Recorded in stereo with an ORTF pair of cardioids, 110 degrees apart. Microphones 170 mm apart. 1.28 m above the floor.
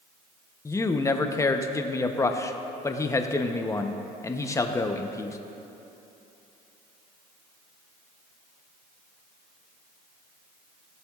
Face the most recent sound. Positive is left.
turn(degrees=20)